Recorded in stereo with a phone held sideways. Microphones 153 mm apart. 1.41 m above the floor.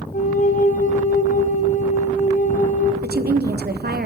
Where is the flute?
55° left (ahead or behind), 1.0 m.